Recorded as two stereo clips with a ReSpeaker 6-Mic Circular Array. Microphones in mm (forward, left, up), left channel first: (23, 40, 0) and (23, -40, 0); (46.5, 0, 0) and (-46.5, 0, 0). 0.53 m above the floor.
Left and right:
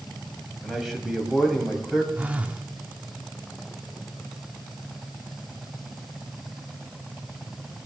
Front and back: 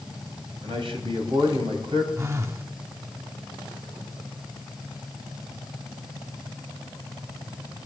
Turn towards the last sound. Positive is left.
turn(degrees=-145)